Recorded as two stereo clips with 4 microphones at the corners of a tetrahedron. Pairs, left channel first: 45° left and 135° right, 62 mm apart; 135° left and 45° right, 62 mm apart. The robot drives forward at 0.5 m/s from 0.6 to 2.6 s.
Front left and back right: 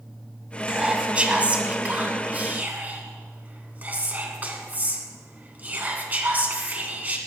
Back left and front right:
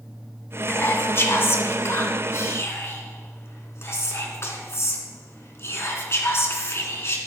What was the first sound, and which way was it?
Whispering, 160° left.